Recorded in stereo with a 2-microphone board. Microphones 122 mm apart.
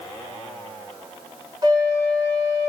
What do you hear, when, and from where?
1.6 s a flute: 35° right (ahead or behind), 0.8 m